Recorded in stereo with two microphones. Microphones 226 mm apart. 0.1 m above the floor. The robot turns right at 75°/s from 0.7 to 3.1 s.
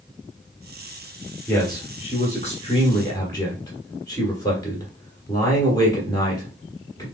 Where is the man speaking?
10° left (ahead or behind), 1.5 m; by 7.0 s 15° left (ahead or behind), 1.5 m.